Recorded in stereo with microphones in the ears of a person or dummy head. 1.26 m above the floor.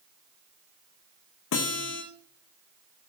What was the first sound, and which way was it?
A guitar, 60° left (ahead or behind).